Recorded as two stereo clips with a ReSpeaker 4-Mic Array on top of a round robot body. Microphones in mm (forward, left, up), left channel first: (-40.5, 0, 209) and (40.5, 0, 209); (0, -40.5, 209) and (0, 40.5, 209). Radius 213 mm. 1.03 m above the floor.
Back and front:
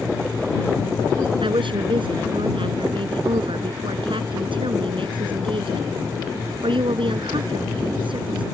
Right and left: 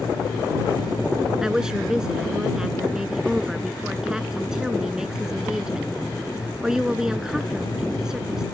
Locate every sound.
1.4 s a woman speaking: 10° left